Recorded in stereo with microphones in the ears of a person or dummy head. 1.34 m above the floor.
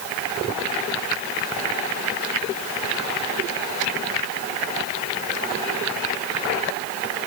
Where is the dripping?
I don't hear dripping.